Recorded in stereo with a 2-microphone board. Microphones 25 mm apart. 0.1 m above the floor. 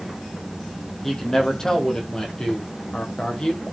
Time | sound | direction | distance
1.0 | a man speaking | 15° left (ahead or behind) | 5 m